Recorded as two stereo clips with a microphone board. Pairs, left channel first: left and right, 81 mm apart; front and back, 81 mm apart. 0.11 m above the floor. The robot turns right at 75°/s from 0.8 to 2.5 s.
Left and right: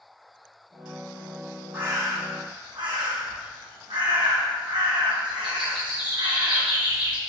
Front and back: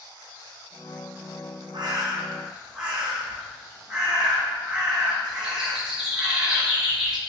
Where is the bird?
160° right, 1.2 m; by 7.2 s 100° right, 1.2 m.